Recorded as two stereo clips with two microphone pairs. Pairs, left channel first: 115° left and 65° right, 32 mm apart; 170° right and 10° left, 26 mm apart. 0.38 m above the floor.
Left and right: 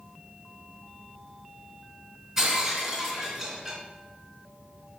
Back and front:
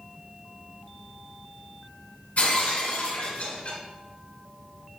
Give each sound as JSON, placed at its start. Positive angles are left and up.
{"t": 2.4, "sound": "breaking glass", "azimuth_deg": -150, "distance_m": 2.5}